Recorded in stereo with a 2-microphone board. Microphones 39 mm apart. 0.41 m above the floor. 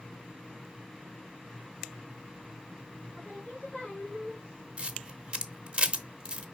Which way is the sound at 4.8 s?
30° right (ahead or behind).